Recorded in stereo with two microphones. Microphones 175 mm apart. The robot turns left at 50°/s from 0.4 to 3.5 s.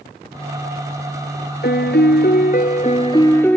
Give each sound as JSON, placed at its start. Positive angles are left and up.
{"t": 1.6, "sound": "a piano", "azimuth_deg": 105}